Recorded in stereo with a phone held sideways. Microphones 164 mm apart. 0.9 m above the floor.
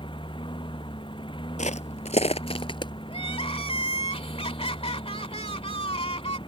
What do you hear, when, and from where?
0.0 s a lawn mower: 30° left (ahead or behind)
1.6 s footsteps: 45° left (ahead or behind); by 2.9 s 30° left (ahead or behind)
3.1 s crying: 35° left (ahead or behind)